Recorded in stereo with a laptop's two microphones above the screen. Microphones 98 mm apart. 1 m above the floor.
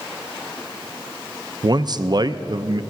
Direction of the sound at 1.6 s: 45° right (ahead or behind).